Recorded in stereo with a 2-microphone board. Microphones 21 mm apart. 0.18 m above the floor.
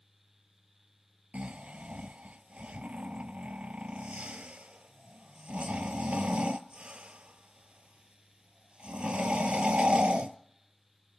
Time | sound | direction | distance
1.3 | snoring | 65° right (ahead or behind) | 0.6 m